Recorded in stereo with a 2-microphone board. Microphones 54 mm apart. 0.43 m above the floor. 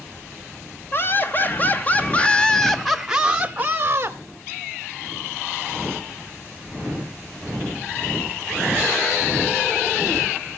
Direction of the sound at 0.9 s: 45° left (ahead or behind).